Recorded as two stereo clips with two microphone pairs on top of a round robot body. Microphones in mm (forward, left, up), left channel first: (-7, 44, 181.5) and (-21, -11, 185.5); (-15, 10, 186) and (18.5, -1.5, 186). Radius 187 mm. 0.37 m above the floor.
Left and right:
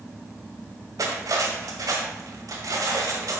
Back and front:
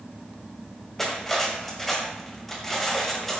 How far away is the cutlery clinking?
About 1.9 m.